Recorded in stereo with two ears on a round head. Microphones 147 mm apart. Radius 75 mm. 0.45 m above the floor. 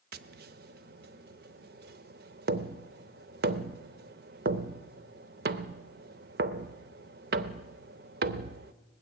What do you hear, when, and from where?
0.1 s tapping: 60° right (ahead or behind), 0.7 m